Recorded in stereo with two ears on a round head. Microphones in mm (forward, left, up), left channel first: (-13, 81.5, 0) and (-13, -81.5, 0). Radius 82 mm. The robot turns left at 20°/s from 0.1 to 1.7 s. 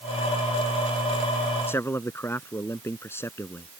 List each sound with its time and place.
1.7 s a man speaking: 15° left (ahead or behind)